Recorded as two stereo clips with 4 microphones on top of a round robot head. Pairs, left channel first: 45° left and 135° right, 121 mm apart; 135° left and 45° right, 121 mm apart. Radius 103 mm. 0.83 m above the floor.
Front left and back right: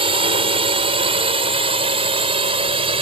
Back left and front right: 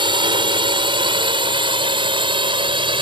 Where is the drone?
95° right; by 3.0 s 90° right.